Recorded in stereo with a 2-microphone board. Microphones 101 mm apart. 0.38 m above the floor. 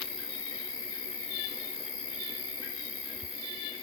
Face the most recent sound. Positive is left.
turn(degrees=-55)  # may be behind; listen again after turning